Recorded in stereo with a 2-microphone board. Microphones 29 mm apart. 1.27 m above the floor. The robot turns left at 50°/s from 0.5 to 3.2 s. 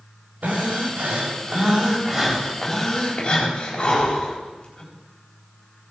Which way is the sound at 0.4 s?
75° right.